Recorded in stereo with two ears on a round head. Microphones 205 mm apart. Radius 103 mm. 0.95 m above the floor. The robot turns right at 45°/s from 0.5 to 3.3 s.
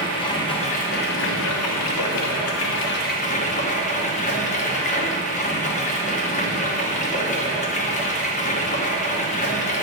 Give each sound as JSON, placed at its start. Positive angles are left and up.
{"t": 0.0, "sound": "running water", "azimuth_deg": 20, "distance_m": 0.8}